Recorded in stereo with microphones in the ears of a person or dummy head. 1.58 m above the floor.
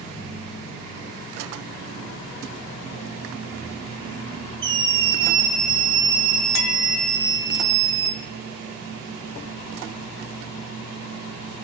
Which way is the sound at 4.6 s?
25° right (ahead or behind).